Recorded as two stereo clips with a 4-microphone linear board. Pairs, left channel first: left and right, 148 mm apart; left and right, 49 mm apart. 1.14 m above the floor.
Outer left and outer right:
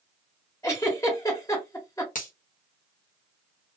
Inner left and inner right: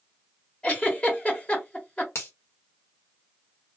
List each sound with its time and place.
0.6 s a giggle: 20° left (ahead or behind), 1.5 m
2.1 s a finger snap: 60° left (ahead or behind), 1.0 m